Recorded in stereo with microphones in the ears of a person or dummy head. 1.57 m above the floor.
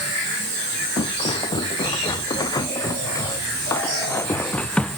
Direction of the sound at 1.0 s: 20° left (ahead or behind).